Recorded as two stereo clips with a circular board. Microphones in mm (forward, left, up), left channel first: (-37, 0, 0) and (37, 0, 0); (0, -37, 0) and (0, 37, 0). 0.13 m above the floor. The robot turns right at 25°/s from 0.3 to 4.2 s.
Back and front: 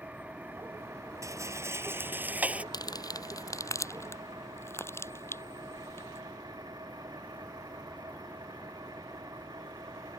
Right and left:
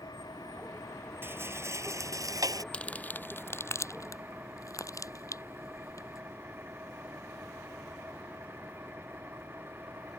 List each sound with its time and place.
0.0 s an engine running: 70° right; by 10.2 s 30° left
1.2 s a rattle: 35° left; by 2.6 s 70° left
2.7 s crumpling: 165° right; by 6.2 s 130° right